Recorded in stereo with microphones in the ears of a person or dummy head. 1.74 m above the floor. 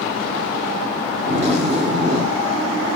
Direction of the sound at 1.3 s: 30° right (ahead or behind).